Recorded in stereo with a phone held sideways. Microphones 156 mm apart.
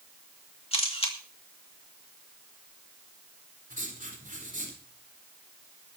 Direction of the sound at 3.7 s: 60° right (ahead or behind).